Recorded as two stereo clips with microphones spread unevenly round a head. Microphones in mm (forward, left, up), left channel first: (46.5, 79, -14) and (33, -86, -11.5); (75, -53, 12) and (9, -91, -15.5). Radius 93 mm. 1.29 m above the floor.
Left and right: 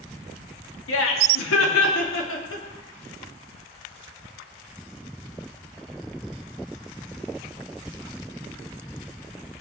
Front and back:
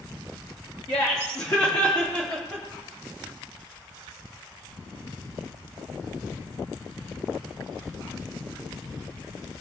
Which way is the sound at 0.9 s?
100° left.